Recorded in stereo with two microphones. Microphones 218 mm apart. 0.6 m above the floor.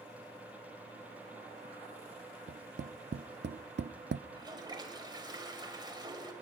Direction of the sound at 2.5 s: 55° right (ahead or behind).